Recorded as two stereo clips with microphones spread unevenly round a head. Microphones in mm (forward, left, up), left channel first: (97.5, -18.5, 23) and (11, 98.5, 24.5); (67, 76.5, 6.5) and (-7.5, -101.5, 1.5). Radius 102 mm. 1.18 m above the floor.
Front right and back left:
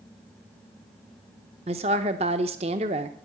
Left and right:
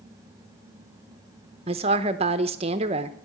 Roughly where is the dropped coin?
No dropped coin in this recording.